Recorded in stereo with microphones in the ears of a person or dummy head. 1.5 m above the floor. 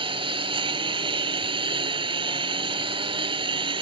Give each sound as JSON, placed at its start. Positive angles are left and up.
{"t": 0.0, "sound": "a lawn mower", "side_deg": -20}